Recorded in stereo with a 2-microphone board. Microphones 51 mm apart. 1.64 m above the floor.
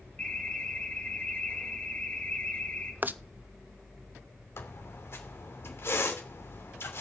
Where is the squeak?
50° left (ahead or behind), 3 m.